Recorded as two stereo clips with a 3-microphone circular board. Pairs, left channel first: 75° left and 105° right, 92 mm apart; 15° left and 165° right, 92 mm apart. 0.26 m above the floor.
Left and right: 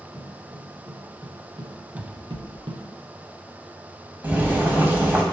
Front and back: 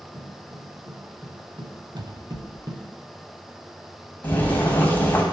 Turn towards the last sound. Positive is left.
turn(degrees=-45)